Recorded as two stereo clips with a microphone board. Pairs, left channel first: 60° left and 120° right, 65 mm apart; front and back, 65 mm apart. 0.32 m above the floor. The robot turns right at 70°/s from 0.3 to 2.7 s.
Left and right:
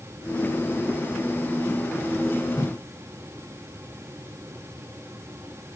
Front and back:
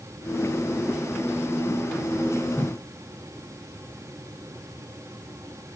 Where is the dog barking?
No dog barking in this recording.